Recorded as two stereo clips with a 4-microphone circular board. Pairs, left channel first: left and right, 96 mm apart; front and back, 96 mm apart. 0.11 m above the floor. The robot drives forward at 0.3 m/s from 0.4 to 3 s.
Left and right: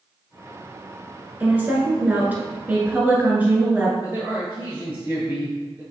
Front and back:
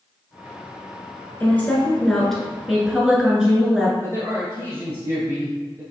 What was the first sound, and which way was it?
A woman speaking, 45° right.